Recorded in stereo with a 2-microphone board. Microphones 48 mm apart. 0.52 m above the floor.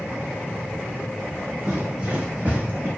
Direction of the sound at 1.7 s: 15° right (ahead or behind).